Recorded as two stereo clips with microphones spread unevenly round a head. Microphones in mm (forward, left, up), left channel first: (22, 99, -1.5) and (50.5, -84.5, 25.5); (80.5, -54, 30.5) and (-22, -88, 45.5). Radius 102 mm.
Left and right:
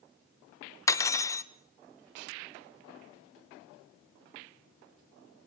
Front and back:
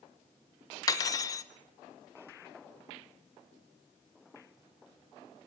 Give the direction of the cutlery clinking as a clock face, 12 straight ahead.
11 o'clock.